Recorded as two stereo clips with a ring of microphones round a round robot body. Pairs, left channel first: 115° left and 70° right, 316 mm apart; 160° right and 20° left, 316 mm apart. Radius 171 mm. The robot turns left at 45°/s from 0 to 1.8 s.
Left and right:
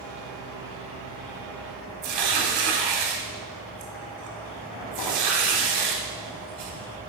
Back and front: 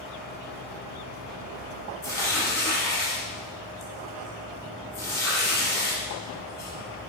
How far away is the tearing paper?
About 1.0 m.